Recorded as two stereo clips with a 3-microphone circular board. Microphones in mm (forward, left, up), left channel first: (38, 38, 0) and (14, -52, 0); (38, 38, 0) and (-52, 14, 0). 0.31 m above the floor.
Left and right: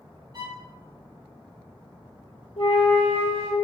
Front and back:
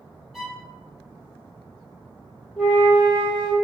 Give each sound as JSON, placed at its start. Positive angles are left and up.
{"t": 0.3, "sound": "a violin", "azimuth_deg": -80, "distance_m": 0.7}
{"t": 2.6, "sound": "a flute", "azimuth_deg": 100, "distance_m": 1.5}